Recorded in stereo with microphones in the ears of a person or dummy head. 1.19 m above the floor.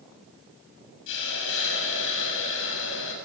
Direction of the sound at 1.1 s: 70° left (ahead or behind).